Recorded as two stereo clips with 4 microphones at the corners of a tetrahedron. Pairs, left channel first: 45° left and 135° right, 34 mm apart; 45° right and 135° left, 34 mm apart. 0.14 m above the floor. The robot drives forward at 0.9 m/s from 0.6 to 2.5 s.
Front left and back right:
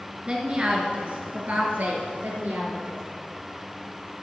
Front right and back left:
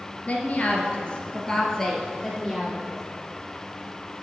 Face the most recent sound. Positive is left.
turn(degrees=-135)